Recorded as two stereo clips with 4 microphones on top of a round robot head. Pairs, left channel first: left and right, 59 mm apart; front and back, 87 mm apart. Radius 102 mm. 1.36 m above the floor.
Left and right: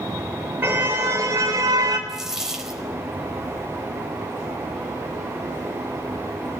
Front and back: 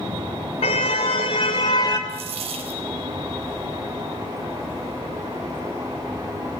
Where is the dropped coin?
170° right, 4 m.